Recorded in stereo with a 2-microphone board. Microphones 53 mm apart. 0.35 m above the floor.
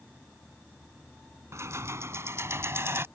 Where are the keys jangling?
65° right (ahead or behind); by 3.1 s 55° right (ahead or behind).